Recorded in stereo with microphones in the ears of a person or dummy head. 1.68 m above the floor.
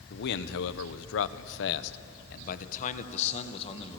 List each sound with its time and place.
0.1 s a man speaking: 60° left (ahead or behind), 1.1 m; by 4.0 s 30° left (ahead or behind), 1.9 m